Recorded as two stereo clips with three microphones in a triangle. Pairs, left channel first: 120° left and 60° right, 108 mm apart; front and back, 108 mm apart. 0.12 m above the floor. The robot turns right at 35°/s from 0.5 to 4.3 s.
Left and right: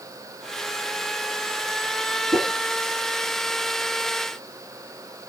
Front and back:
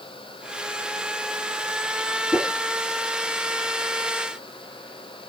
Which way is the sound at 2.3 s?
110° right.